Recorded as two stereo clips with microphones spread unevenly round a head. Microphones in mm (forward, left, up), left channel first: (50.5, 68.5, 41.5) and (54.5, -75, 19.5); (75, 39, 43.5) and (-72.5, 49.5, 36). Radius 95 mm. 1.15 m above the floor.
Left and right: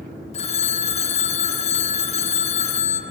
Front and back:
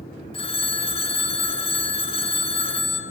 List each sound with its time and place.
0.3 s a phone ringing: 50° left, 1.2 m